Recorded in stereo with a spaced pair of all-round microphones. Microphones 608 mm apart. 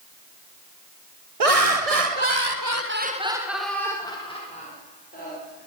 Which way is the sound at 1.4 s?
65° right (ahead or behind).